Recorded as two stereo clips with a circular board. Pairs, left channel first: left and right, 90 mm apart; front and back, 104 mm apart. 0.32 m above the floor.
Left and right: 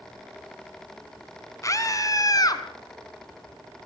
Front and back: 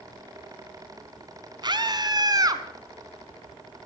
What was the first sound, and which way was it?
A scream, 140° left.